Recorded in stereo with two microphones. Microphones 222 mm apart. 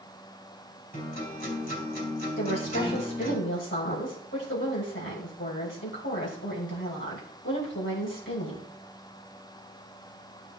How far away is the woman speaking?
About 3.5 m.